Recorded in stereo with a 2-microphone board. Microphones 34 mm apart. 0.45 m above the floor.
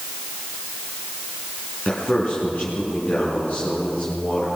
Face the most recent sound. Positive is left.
turn(degrees=45)  # may be behind; listen again after turning